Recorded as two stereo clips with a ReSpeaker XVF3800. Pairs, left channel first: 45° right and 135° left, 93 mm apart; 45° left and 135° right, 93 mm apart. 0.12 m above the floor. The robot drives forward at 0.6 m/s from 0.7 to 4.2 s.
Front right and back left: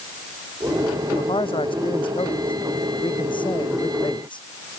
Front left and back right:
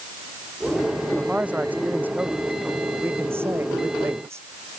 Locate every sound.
1.1 s a man speaking: 60° right; by 4.8 s 75° right